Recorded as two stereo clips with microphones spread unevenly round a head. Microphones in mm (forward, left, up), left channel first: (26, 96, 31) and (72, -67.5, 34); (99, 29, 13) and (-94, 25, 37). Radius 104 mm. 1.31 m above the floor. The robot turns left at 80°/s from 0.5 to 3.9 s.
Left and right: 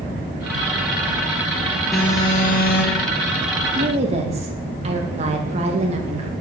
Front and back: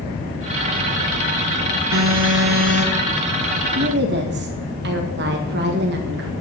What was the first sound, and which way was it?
An alarm, 165° right.